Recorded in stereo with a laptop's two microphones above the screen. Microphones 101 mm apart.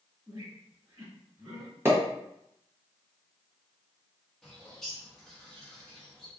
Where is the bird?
5° left (ahead or behind), 0.7 m.